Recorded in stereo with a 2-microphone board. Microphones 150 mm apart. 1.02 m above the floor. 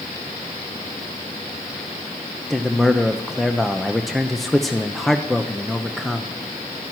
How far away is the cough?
No cough in this recording.